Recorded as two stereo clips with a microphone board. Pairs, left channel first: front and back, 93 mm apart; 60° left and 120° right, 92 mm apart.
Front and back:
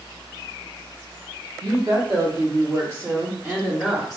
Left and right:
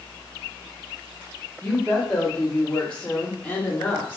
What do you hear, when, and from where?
1.6 s a woman speaking: 145° left, 1.7 m; by 4.2 s 95° left, 0.8 m